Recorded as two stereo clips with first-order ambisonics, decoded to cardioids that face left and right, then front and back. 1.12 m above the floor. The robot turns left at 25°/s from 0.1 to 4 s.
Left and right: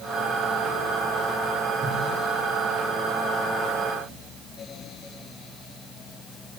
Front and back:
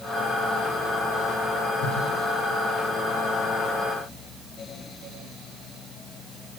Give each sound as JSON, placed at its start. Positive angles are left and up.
{"t": 1.8, "sound": "a whoosh", "azimuth_deg": -25, "distance_m": 10.0}